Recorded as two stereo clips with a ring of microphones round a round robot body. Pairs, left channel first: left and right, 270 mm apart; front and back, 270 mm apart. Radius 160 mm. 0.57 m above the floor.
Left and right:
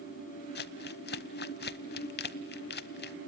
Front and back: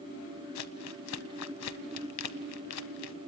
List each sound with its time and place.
0.6 s crumpling: 40° left, 0.8 m